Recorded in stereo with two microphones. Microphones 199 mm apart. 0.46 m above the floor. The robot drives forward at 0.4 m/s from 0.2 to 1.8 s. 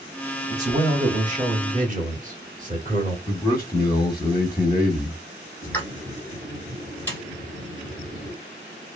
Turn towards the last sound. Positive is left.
turn(degrees=10)  # may be behind; listen again after turning